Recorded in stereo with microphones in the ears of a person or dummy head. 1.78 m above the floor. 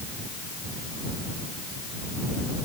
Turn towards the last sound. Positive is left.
No sound to turn to.